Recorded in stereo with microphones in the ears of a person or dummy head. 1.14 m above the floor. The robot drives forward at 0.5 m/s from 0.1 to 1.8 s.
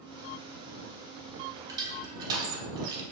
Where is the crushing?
15° right (ahead or behind), 0.7 m.